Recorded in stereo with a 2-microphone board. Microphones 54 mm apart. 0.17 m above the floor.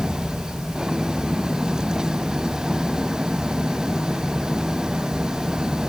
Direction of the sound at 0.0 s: 10° right (ahead or behind).